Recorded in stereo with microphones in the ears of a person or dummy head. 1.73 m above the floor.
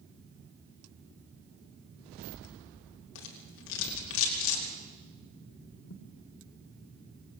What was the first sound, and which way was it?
A rattle, 75° left (ahead or behind).